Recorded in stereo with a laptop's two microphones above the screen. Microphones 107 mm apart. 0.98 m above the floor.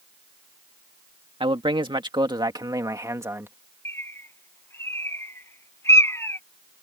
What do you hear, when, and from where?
1.4 s a man speaking: 55° right (ahead or behind); by 3.5 s 20° right (ahead or behind)
3.9 s a bird: 25° left (ahead or behind)